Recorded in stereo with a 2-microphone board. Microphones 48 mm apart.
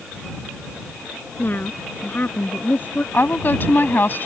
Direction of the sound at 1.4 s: 40° left (ahead or behind).